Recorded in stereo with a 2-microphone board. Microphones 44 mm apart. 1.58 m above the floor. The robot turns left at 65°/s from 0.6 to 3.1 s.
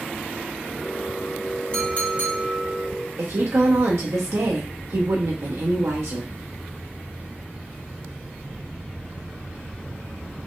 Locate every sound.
1.7 s a clink: 155° left, 1.5 m; by 2.9 s 80° left, 1.5 m
3.2 s a woman speaking: 85° right, 0.9 m